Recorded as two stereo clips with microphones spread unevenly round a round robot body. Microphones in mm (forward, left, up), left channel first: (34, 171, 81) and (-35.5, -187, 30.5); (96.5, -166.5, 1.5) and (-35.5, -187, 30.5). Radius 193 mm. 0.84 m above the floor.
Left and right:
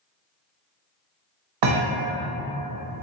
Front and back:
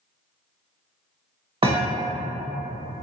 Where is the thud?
130° right, 1.0 m.